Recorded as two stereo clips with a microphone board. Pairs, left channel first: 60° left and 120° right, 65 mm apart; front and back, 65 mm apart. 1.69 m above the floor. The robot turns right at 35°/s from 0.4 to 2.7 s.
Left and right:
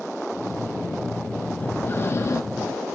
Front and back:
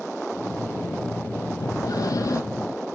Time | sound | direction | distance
1.6 | breathing | straight ahead | 1.6 m